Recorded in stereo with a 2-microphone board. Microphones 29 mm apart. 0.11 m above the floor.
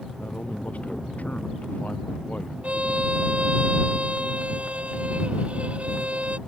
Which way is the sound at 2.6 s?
50° right (ahead or behind).